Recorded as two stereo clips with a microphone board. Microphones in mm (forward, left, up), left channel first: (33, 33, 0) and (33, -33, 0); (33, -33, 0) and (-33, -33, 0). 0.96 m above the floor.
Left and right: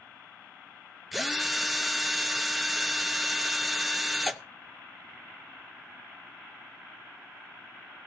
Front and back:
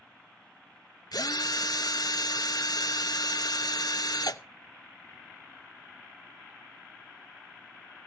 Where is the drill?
Straight ahead, 0.8 m.